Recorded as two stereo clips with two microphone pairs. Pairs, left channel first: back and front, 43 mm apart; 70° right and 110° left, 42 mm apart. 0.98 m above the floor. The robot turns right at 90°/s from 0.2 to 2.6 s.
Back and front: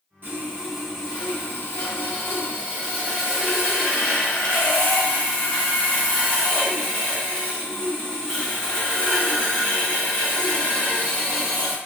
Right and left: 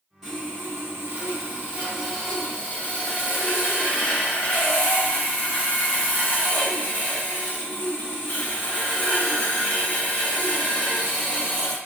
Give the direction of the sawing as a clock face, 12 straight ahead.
11 o'clock.